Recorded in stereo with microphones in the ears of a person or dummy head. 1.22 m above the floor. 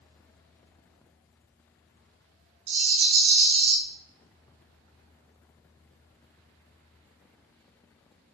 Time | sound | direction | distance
2.7 | a rattle | 70° right (ahead or behind) | 1.5 m